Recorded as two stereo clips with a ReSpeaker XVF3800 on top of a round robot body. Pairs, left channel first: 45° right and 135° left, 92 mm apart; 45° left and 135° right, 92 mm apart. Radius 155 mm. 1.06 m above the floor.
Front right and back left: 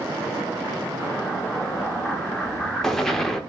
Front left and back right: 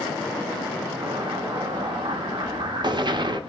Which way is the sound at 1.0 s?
130° right.